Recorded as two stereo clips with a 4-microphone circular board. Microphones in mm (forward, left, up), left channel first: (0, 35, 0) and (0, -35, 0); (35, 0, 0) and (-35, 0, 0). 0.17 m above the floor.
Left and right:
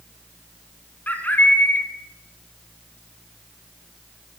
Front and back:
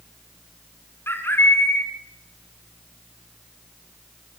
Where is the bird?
35° left, 2.0 m.